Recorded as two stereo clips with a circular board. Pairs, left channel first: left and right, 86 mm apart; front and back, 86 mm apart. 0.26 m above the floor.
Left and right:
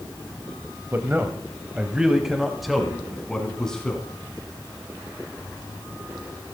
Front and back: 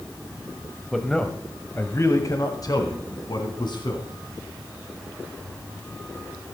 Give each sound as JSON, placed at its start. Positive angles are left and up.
{"t": 0.9, "sound": "a man speaking", "azimuth_deg": -85, "distance_m": 1.2}